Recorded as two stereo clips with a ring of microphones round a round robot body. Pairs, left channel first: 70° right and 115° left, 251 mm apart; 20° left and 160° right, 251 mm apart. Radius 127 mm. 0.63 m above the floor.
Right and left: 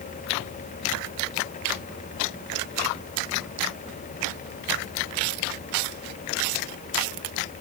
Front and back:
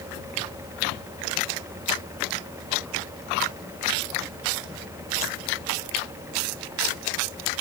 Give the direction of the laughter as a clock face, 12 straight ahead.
I don't hear laughter.